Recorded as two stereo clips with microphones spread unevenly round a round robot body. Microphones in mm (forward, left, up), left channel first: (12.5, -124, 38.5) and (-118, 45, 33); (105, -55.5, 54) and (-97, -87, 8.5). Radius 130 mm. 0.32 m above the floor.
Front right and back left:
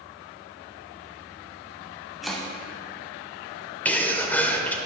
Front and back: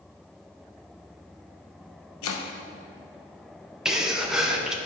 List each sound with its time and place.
2.2 s chopping: 40° left, 0.6 m
3.9 s a sneeze: 125° right, 0.8 m